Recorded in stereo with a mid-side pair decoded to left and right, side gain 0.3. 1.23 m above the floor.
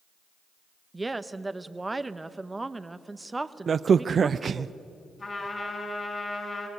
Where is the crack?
60° right, 0.6 m.